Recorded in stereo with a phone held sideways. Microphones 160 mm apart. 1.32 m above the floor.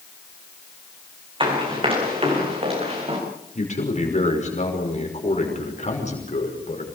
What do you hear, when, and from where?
1.4 s running footsteps: 30° right (ahead or behind), 7 m; by 3.2 s 40° right (ahead or behind), 8 m
3.5 s a man speaking: 50° left (ahead or behind), 5.5 m